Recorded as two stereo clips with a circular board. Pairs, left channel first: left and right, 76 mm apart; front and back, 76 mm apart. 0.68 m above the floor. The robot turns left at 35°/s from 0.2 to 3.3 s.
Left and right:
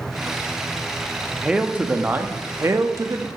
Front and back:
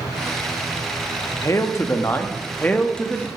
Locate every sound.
1.4 s a man speaking: 15° right, 0.6 m; by 3.3 s 80° right, 0.6 m